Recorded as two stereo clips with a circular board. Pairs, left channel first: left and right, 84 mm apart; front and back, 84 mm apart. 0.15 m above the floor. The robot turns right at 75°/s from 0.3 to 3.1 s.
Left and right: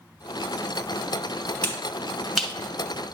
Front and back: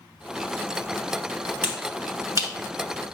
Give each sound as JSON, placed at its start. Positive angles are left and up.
{"t": 1.6, "sound": "a finger snap", "azimuth_deg": 130, "distance_m": 1.4}